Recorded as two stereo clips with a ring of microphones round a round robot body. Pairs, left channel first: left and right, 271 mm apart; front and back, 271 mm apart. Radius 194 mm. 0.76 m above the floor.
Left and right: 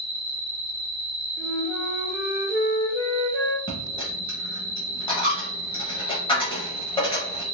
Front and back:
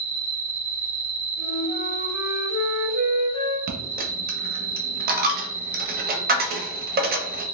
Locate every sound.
0.0 s an insect: 110° right, 1.6 m
1.4 s a flute: 10° right, 1.2 m
3.7 s a dropped coin: 155° left, 0.6 m